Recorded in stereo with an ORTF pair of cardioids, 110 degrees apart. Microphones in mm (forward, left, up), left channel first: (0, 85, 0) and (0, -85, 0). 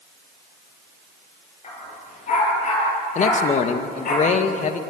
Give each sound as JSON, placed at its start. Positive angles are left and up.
{"t": 1.6, "sound": "a dog barking", "azimuth_deg": 40, "distance_m": 10.0}
{"t": 3.1, "sound": "a man speaking", "azimuth_deg": 45, "distance_m": 2.0}